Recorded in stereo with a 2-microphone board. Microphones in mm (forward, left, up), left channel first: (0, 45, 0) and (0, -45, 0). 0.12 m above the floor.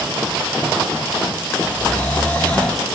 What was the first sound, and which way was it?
Snoring, 20° left (ahead or behind).